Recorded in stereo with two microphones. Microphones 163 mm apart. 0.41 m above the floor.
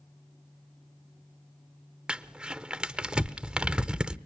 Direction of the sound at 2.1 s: 5° right (ahead or behind).